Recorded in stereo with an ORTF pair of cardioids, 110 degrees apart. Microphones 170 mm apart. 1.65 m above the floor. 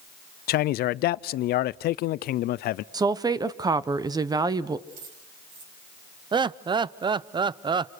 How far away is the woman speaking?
About 1.1 m.